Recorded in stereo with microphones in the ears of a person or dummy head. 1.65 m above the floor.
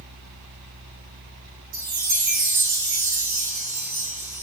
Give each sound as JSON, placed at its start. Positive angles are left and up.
{"t": 1.7, "sound": "a chime", "side_deg": -50, "distance_m": 2.5}